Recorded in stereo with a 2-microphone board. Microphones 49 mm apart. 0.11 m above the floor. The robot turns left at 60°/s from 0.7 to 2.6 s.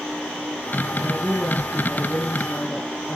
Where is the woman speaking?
95° right, 2.5 m; by 3.2 s 165° left, 2.5 m.